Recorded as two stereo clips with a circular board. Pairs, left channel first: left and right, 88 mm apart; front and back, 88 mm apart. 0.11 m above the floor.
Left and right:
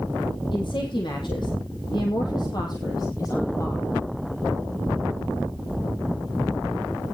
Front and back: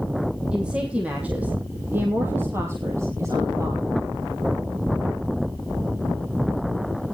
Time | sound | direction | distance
0.5 | a woman speaking | 100° left | 3.5 m